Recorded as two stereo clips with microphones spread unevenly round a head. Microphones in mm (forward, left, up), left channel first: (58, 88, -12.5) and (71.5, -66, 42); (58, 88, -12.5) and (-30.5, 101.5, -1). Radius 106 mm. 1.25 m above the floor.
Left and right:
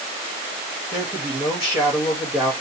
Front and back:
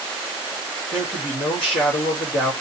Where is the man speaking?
15° right, 3.5 m.